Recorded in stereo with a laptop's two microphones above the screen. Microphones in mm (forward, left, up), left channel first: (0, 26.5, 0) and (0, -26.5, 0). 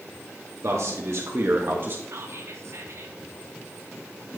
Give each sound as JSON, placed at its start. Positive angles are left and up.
{"t": 0.6, "sound": "a man speaking", "side_deg": -65, "distance_m": 1.6}
{"t": 2.1, "sound": "whispering", "side_deg": -60, "distance_m": 1.3}